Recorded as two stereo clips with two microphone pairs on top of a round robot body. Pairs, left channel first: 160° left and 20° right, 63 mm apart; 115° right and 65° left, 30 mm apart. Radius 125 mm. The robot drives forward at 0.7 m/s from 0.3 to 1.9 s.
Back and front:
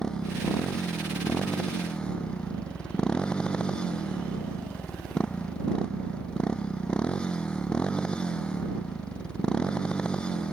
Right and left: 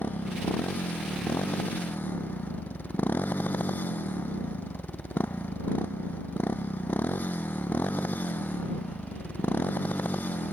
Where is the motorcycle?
120° right.